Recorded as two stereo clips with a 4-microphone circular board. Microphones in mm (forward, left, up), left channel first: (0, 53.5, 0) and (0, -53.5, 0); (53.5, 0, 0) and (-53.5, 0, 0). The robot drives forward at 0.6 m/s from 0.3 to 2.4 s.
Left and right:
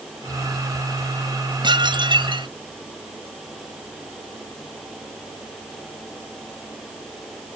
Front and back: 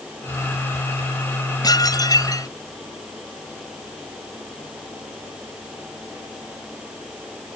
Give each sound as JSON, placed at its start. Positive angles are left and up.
{"t": 1.6, "sound": "dishes clattering", "azimuth_deg": -50}